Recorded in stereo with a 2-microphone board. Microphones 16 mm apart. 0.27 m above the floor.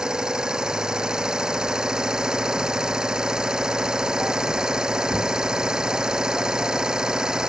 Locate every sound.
0.0 s an engine running: 80° right